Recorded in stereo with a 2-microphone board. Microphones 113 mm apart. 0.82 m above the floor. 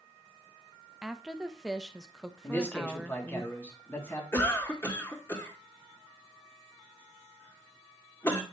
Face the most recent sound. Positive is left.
turn(degrees=20)  # may be behind; listen again after turning